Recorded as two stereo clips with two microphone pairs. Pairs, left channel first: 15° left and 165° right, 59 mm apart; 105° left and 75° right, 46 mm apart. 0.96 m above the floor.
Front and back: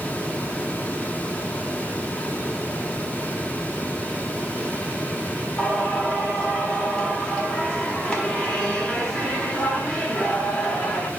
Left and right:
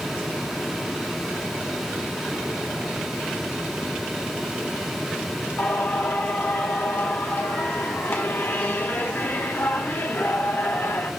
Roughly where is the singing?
Left.